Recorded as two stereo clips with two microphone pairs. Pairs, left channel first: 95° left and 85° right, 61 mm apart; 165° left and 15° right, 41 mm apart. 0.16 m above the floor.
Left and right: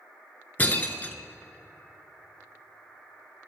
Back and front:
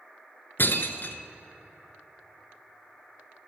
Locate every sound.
0.6 s breaking glass: 160° left, 0.7 m